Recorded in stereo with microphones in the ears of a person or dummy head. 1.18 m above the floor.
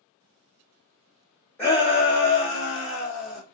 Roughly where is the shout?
Centre.